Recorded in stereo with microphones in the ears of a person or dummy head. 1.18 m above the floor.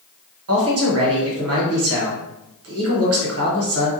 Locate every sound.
0.5 s a man speaking: 75° right (ahead or behind), 1.1 m